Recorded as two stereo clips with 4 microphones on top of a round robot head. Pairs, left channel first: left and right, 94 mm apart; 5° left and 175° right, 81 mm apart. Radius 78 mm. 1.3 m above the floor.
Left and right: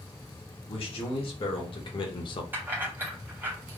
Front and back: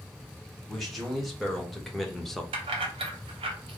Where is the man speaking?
95° left, 2 m; by 2.4 s 90° left, 0.9 m.